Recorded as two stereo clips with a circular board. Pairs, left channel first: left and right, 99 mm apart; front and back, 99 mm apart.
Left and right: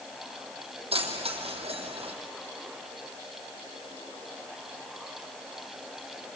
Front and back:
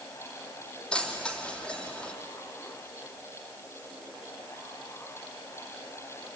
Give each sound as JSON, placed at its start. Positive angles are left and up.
{"t": 0.9, "sound": "keys jangling", "azimuth_deg": -80, "distance_m": 3.0}